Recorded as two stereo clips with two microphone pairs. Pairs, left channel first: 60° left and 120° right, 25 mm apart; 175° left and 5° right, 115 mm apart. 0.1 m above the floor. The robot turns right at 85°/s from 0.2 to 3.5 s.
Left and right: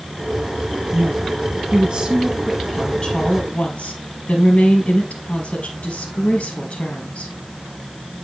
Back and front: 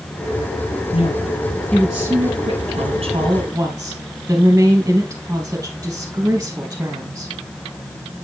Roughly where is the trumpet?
I don't hear a trumpet.